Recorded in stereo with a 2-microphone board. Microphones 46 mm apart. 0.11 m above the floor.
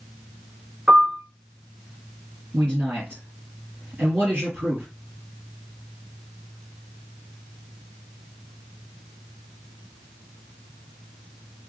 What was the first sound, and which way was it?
A piano, 20° right (ahead or behind).